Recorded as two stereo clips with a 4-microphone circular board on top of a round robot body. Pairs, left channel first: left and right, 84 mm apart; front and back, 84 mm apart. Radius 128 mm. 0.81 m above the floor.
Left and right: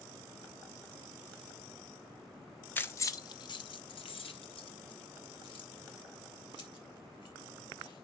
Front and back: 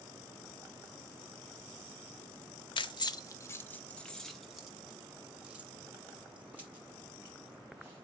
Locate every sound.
2.8 s keys jangling: 20° left, 0.7 m; by 8.1 s 110° left, 3.5 m